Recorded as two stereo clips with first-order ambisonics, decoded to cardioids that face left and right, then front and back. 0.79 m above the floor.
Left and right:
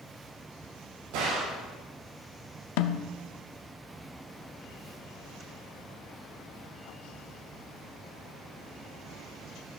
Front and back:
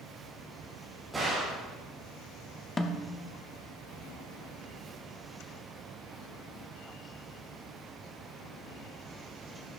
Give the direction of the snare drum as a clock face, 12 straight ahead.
9 o'clock.